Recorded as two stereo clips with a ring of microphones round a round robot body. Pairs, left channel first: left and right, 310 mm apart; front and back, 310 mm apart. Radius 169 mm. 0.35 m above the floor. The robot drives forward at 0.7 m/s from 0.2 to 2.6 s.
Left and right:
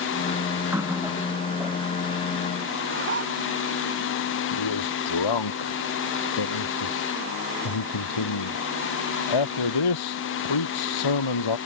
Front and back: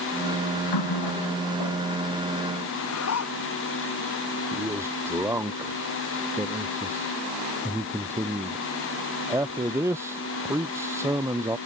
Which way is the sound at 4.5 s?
95° left.